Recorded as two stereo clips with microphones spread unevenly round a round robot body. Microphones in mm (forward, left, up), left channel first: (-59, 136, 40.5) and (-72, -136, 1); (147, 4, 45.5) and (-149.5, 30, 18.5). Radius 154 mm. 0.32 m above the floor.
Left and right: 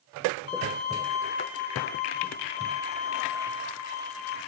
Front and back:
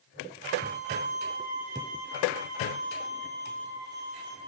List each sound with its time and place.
0.5 s a violin: 125° left, 1.8 m